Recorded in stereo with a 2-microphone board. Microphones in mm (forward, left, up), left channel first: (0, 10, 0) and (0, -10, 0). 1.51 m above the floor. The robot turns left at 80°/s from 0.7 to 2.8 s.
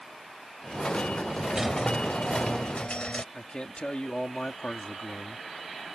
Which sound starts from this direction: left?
A man speaking, at 3.3 s.